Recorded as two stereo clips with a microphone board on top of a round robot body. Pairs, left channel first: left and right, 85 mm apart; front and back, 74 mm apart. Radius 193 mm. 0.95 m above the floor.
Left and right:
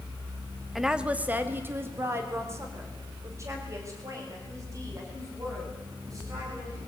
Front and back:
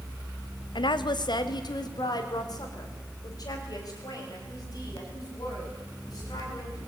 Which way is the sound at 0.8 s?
Straight ahead.